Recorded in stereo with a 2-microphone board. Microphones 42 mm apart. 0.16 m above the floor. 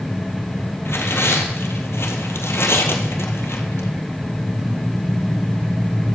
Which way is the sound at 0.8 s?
75° left (ahead or behind).